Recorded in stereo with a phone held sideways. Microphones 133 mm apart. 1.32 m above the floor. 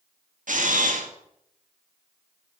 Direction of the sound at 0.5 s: 80° right.